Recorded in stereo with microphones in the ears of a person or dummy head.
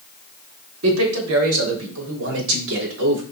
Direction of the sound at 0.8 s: 75° right (ahead or behind).